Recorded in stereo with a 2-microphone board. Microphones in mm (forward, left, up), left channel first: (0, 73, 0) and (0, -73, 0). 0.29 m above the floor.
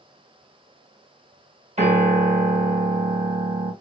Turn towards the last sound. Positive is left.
turn(degrees=-50)  # may be behind; listen again after turning